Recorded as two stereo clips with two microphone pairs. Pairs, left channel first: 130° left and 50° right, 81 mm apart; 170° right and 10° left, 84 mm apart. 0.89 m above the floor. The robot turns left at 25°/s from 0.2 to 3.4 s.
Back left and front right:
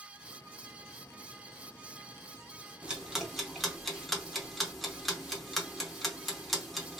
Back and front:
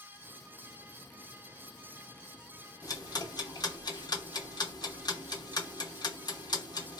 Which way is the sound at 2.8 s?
125° right.